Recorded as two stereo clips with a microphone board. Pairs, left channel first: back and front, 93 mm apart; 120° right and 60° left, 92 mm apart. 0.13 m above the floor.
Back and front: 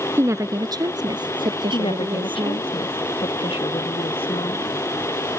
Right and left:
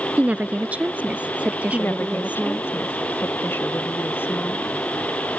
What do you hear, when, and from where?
0.2 s a woman speaking: 5° left; by 2.7 s 15° right
1.7 s a woman speaking: 175° left